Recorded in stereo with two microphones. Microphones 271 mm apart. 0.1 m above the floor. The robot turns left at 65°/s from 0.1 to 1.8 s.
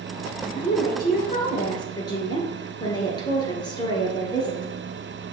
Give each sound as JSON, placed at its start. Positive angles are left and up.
{"t": 0.4, "sound": "a woman speaking", "azimuth_deg": 120, "distance_m": 1.3}